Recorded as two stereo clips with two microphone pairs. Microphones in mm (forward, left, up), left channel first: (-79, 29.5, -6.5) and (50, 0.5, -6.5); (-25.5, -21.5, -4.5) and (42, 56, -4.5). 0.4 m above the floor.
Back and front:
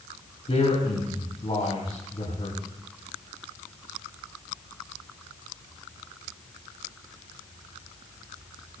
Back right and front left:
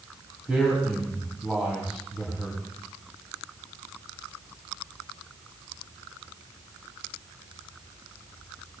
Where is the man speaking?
130° left, 3.5 m.